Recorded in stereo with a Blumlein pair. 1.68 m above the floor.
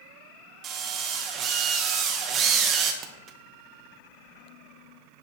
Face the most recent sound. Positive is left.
turn(degrees=-30)